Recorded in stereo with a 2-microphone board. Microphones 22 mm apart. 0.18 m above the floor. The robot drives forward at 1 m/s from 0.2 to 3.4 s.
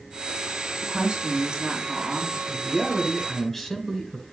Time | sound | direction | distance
0.8 | a woman speaking | 45° right (ahead or behind) | 2.5 m
2.5 | a man speaking | 10° left (ahead or behind) | 2.5 m